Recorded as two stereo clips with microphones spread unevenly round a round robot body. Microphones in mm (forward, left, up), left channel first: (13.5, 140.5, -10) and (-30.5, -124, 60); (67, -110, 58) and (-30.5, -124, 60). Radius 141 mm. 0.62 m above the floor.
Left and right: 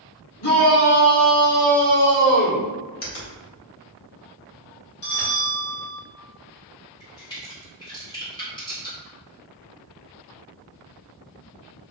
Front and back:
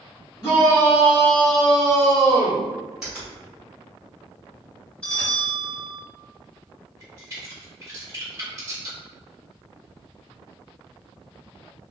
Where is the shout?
65° left, 2.0 m; by 2.7 s 105° left, 2 m.